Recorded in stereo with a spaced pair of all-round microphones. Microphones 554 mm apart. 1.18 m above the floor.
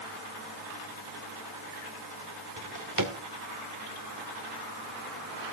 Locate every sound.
2.6 s a drawer: 35° right (ahead or behind), 1.8 m